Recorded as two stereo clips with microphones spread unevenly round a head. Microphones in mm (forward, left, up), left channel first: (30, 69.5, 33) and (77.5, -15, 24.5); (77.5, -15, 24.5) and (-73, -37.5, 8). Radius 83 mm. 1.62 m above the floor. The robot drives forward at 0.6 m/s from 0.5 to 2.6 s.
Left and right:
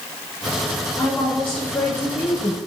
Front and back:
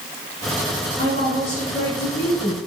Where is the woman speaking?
45° left, 4.5 m; by 2.6 s 60° left, 3.5 m.